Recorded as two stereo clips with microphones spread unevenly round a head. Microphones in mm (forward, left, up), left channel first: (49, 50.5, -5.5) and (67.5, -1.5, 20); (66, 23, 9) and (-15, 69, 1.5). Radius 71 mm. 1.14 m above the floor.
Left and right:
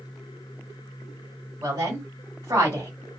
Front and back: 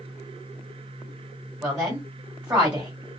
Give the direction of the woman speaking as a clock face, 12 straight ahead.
5 o'clock.